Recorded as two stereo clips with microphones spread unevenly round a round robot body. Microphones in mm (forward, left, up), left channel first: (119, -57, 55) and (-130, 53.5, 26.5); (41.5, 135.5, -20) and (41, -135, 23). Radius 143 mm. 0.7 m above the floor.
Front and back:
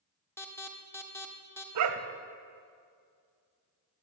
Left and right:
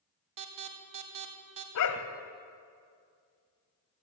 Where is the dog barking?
130° left, 1.4 m.